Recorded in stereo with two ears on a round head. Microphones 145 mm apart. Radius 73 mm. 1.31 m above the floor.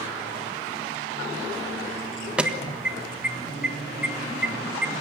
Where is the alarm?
5° right (ahead or behind), 1.4 m.